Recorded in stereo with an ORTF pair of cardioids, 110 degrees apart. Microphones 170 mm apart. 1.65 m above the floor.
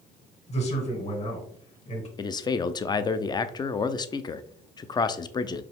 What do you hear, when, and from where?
0.5 s a man speaking: 40° left, 2 m
2.2 s a man speaking: 25° left, 0.5 m